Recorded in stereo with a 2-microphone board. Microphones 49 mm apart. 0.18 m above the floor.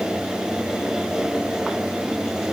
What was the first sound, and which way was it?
Only background noise.